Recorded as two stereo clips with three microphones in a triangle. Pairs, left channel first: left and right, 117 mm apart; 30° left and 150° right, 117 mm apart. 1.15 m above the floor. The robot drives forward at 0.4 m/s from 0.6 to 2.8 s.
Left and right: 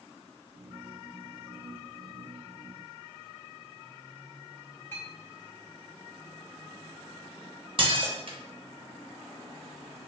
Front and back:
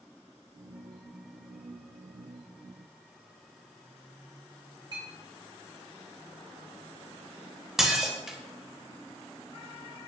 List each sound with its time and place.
4.9 s a clink: 165° left, 1.6 m
7.8 s dishes clattering: 65° right, 0.5 m